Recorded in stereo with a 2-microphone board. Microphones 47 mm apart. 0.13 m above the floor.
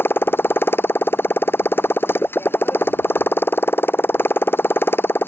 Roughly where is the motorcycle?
Left.